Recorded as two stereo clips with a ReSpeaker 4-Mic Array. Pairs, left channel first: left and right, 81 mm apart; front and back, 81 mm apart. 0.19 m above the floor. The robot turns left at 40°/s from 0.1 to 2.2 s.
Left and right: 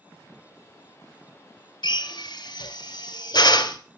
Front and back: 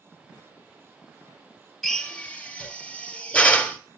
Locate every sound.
1.8 s a drill: 90° left, 1.6 m; by 3.8 s 75° left, 1.6 m